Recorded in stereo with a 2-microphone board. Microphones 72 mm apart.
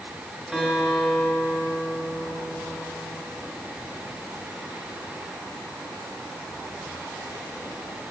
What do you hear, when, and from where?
0.5 s a guitar: centre (ahead or behind), 3.5 m